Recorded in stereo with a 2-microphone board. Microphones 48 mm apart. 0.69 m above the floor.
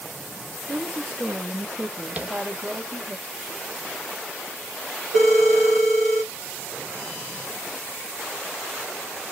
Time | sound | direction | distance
0.7 | a woman speaking | 30° right (ahead or behind) | 0.8 m
2.2 | tapping | 30° right (ahead or behind) | 0.6 m
5.2 | a phone ringing | centre (ahead or behind) | 1.2 m